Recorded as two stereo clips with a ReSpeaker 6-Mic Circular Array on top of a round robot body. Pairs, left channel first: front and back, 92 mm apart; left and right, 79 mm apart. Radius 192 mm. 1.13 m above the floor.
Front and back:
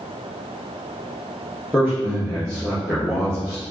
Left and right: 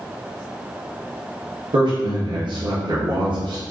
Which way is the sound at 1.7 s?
85° right.